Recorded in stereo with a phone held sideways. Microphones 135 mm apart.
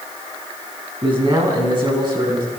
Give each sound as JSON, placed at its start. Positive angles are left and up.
{"t": 1.0, "sound": "a man speaking", "side_deg": -40, "distance_m": 9.0}